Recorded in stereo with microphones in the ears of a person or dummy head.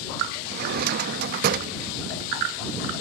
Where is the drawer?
55° right (ahead or behind).